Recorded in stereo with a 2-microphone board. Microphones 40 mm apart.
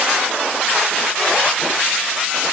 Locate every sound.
Only background noise.